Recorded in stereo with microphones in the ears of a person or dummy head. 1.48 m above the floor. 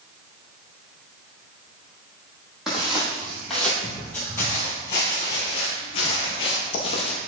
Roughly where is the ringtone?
No ringtone in this recording.